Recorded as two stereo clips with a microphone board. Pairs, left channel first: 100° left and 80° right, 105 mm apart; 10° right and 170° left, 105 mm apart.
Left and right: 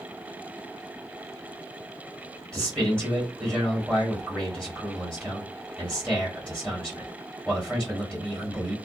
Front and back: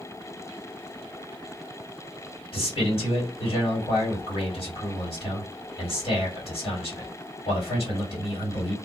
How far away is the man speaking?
About 2.5 m.